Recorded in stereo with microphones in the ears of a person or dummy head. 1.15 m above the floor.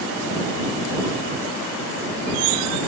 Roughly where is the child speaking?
I don't hear a child speaking.